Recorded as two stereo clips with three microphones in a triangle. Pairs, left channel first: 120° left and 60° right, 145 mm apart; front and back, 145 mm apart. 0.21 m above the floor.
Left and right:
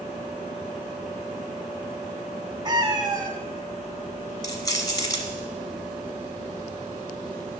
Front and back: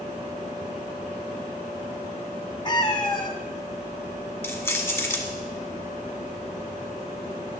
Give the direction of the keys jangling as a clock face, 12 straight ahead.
10 o'clock.